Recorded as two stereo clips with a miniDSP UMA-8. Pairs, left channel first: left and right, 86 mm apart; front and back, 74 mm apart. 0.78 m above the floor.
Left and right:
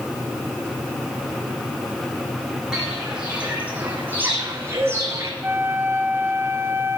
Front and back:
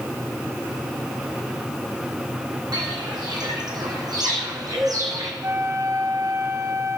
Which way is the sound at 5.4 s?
145° right.